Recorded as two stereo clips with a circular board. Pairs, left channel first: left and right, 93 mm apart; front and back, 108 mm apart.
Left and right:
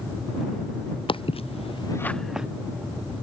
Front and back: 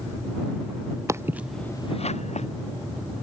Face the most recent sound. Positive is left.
turn(degrees=-10)